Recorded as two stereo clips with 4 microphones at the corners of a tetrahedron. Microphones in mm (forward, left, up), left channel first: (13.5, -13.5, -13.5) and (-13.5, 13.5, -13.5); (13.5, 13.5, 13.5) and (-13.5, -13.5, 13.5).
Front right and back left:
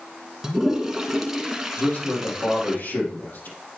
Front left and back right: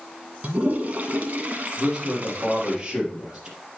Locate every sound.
0.4 s a toilet flushing: 150° right, 1.0 m
1.8 s a man speaking: 65° right, 4 m